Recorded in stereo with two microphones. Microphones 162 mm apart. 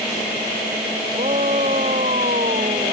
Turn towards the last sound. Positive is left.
turn(degrees=-50)  # may be behind; listen again after turning